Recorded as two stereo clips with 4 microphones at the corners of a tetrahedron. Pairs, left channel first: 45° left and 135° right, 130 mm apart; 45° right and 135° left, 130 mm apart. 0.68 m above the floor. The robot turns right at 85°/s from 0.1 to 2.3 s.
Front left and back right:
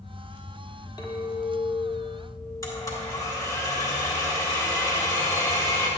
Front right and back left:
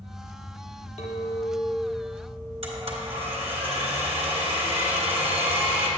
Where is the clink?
10° right, 1.3 m; by 3.6 s 100° left, 1.3 m.